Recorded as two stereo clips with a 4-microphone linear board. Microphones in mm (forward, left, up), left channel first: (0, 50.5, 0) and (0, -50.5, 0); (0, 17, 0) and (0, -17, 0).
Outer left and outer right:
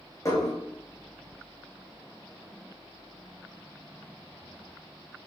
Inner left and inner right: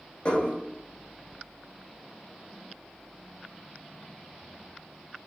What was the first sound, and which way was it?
Dishes clattering, 30° left (ahead or behind).